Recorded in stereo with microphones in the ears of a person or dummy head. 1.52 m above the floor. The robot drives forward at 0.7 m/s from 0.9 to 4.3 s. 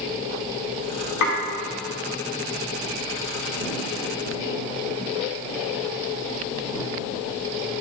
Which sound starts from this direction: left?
Dishes clattering, at 1.2 s.